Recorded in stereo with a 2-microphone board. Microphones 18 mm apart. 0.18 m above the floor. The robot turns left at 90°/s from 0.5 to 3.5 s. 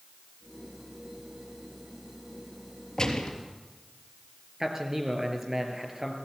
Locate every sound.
3.0 s a gunshot: 140° left, 3.5 m; by 3.3 s 110° left, 3.5 m
4.6 s a man speaking: 25° right (ahead or behind), 4 m